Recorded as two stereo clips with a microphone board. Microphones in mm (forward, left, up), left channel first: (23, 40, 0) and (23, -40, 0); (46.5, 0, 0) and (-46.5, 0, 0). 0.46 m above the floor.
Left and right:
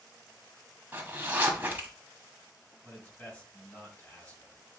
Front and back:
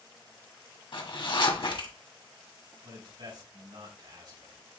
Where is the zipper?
25° right, 1.5 m.